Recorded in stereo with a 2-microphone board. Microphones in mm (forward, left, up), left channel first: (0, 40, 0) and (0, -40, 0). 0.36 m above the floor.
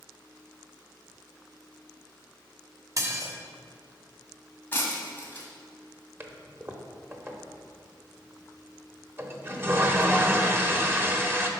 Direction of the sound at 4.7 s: 25° left (ahead or behind).